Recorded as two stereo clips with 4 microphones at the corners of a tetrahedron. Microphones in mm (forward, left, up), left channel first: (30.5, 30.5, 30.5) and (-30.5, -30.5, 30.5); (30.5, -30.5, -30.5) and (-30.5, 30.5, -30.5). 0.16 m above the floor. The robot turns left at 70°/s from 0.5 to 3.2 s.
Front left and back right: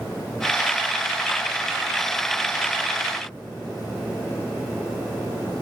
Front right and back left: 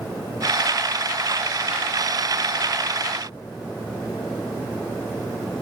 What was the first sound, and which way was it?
Only background noise.